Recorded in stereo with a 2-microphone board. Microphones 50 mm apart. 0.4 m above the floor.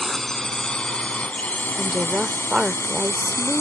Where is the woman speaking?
15° right (ahead or behind).